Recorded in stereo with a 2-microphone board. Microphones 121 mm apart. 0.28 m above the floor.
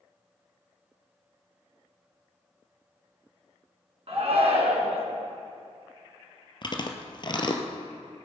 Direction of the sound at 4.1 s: 55° right (ahead or behind).